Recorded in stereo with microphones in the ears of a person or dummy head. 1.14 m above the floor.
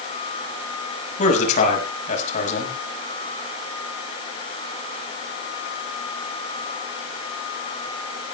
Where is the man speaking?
50° left (ahead or behind), 6 m.